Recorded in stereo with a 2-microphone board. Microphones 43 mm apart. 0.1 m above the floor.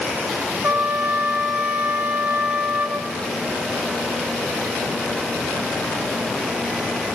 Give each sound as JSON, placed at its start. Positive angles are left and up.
{"t": 0.6, "sound": "a trumpet", "side_deg": -60, "distance_m": 0.7}